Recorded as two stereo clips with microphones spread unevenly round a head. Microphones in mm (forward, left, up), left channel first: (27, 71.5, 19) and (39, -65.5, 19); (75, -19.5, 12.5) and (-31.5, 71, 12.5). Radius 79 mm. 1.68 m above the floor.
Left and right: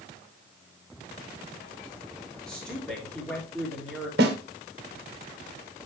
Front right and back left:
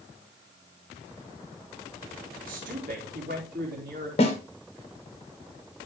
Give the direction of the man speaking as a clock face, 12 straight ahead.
6 o'clock.